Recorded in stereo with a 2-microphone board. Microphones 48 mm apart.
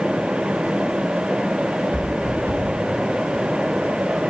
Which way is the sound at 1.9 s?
60° right (ahead or behind).